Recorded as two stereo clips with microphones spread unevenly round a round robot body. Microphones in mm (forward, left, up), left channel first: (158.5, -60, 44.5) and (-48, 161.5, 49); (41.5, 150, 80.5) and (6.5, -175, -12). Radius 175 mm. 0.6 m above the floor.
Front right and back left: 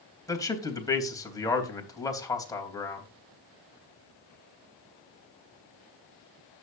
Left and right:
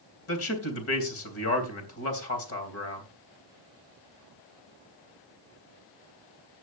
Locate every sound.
0.3 s a man speaking: 30° left, 3.5 m